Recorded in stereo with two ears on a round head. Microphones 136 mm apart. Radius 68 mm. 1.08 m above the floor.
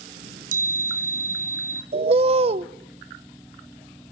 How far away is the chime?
About 3 m.